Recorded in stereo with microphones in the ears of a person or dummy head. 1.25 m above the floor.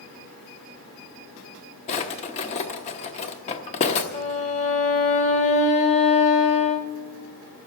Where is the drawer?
35° left (ahead or behind), 1.0 m.